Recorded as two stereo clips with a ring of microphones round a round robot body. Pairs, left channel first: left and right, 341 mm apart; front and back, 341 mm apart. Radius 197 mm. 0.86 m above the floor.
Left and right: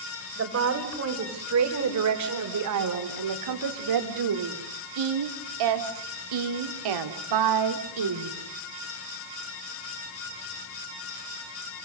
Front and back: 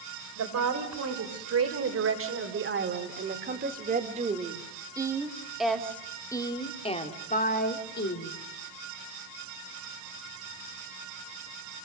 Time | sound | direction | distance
0.4 | a woman speaking | 140° right | 4 m